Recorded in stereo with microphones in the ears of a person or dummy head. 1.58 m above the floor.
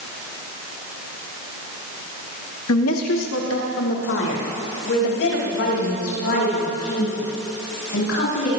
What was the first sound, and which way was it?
A woman speaking, 80° left.